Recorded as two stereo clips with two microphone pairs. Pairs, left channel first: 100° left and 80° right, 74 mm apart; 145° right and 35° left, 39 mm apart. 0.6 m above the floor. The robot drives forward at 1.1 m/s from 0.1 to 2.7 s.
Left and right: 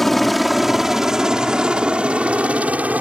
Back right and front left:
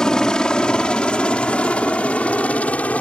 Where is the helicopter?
175° right; by 3.0 s 140° right.